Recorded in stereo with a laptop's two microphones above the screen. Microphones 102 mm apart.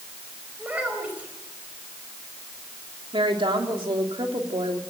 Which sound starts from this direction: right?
A woman speaking, at 3.1 s.